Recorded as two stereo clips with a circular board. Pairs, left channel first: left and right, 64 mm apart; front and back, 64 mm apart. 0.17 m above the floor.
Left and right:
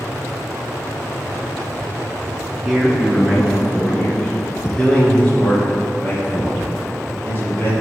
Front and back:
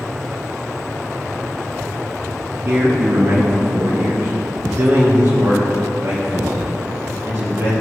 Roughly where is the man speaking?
Behind.